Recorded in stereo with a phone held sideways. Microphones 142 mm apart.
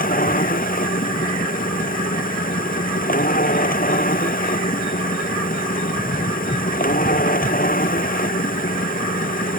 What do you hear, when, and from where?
0.0 s a machine running: 85° left